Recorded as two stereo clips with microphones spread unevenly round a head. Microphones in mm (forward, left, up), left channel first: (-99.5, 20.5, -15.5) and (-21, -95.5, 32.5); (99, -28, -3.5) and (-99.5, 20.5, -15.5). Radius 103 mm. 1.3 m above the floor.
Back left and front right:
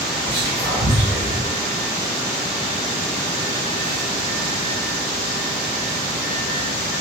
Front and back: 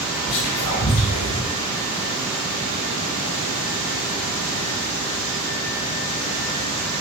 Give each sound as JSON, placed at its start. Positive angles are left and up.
{"t": 0.3, "sound": "whispering", "azimuth_deg": 10, "distance_m": 4.0}